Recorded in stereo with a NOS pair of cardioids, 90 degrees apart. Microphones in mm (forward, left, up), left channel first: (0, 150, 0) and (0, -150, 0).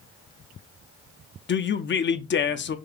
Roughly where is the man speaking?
Ahead left.